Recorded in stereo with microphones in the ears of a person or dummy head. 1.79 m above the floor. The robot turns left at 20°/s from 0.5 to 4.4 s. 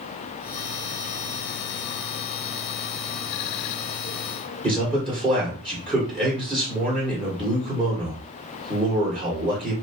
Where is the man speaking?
15° right (ahead or behind), 1.6 m.